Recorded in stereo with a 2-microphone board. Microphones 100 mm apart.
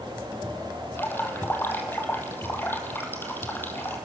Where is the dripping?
20° left (ahead or behind), 2.5 m.